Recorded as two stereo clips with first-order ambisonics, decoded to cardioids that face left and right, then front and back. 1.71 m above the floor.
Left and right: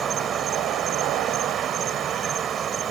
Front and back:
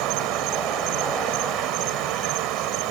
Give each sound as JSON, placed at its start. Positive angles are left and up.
{"t": 0.0, "sound": "an insect", "azimuth_deg": -155}